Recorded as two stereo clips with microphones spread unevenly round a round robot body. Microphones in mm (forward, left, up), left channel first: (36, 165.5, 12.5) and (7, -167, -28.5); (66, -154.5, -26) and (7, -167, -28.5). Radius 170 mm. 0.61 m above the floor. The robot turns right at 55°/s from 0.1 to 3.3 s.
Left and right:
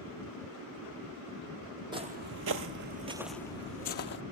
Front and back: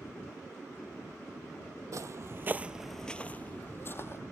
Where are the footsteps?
175° right, 0.9 m; by 4.2 s 45° left, 0.9 m.